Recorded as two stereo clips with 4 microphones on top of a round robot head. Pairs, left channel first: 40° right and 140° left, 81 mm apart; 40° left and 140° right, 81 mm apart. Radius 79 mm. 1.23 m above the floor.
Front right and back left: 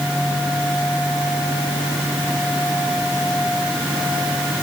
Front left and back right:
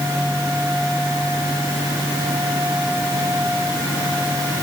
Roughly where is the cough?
I don't hear a cough.